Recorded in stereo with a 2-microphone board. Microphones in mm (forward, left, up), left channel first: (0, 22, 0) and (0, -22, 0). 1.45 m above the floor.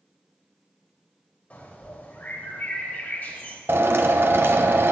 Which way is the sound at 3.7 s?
65° right (ahead or behind).